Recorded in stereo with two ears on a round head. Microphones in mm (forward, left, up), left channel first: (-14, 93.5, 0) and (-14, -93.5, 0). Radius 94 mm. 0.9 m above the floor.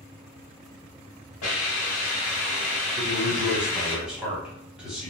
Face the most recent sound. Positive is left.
turn(degrees=-5)  # may be behind; listen again after turning